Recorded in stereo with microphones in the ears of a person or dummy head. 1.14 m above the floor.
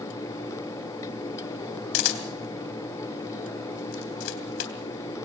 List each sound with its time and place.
1.9 s a camera shutter: 80° left, 3.5 m